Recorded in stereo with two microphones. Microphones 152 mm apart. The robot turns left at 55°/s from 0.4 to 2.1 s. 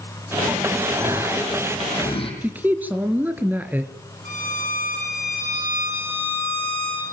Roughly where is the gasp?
Behind right.